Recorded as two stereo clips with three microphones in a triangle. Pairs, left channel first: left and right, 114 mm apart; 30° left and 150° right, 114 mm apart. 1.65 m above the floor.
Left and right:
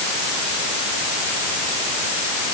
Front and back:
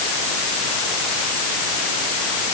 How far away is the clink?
I don't hear a clink.